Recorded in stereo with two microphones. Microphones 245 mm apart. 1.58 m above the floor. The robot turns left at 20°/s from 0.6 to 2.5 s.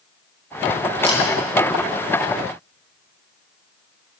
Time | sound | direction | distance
1.0 | a camera shutter | 25° left (ahead or behind) | 8 m